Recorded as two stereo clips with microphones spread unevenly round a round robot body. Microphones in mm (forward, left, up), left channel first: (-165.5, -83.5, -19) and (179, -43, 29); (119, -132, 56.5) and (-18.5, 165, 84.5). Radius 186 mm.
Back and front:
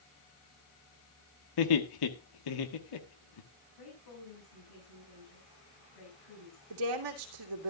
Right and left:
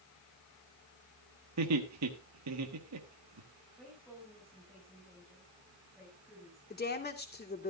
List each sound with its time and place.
1.6 s laughter: 160° left, 1.5 m
3.8 s a woman speaking: 155° right, 6.5 m
6.7 s a woman speaking: 5° right, 2.5 m